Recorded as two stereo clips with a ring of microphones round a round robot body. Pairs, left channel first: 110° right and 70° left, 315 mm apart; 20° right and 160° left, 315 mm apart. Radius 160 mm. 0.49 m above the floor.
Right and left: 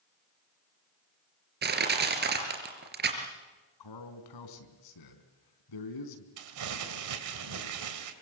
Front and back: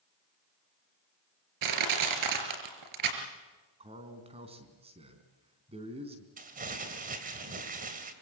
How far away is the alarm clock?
No alarm clock in this recording.